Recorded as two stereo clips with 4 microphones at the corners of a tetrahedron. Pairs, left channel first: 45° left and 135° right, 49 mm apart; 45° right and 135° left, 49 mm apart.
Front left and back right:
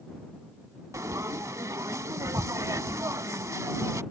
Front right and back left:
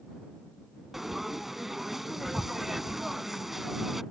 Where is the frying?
140° right.